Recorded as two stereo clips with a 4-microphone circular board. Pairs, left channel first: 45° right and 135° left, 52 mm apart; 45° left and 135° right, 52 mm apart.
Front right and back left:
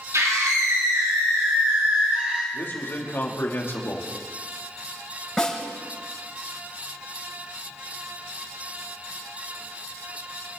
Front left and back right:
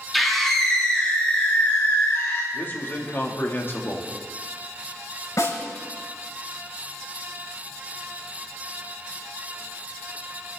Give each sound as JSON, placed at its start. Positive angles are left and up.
{"t": 0.1, "sound": "a scream", "azimuth_deg": 135, "distance_m": 2.5}
{"t": 2.5, "sound": "a man speaking", "azimuth_deg": 0, "distance_m": 2.5}
{"t": 5.4, "sound": "a snare drum", "azimuth_deg": 35, "distance_m": 7.0}